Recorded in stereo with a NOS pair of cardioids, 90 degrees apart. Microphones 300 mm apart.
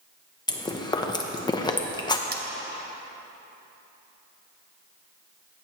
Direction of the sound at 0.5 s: 15° left.